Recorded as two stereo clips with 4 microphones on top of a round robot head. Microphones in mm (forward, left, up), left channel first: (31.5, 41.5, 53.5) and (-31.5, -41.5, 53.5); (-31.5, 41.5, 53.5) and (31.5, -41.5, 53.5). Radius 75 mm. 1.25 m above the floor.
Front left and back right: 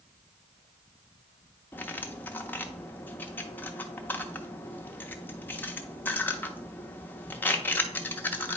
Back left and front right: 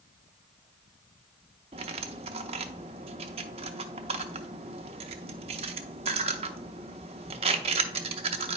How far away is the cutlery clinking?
About 0.5 m.